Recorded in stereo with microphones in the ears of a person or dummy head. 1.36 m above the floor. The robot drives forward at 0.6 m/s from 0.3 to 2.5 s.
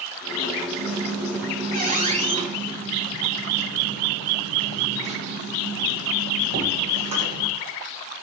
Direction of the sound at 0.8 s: 60° right (ahead or behind).